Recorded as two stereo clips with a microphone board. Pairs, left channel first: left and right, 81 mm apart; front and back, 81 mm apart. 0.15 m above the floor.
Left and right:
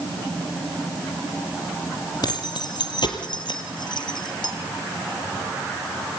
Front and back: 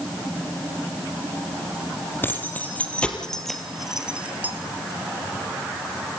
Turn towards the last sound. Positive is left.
turn(degrees=110)